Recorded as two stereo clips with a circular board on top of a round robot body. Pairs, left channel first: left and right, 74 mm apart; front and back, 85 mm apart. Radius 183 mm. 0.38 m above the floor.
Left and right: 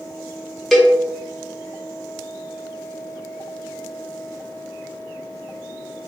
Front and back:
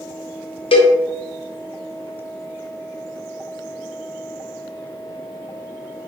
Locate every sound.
0.7 s a cowbell: 5° left, 0.5 m